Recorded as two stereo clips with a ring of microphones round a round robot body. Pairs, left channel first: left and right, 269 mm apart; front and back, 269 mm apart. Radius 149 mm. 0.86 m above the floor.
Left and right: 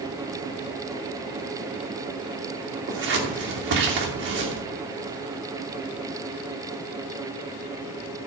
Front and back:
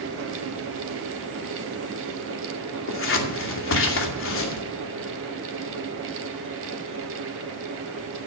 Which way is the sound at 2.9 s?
40° right.